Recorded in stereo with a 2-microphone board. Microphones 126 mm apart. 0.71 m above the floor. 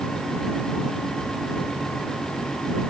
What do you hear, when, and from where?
Only background noise.